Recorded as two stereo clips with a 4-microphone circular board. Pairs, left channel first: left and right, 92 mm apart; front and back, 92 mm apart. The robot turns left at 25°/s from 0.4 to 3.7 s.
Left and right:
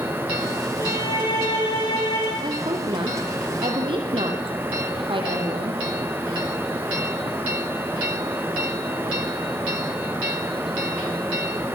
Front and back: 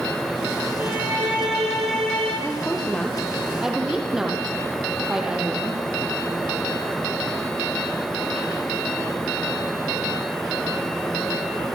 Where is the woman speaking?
65° right, 4 m; by 5.8 s 100° right, 4 m.